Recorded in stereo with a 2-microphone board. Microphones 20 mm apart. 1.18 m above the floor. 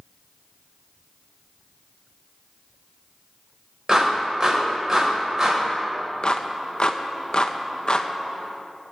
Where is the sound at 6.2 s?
45° left (ahead or behind), 0.8 m.